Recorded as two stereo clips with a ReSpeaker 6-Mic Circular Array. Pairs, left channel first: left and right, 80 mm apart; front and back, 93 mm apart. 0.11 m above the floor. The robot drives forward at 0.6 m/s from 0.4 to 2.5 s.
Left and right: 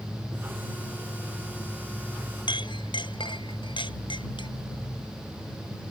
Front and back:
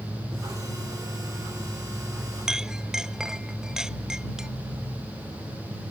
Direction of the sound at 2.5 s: 95° left.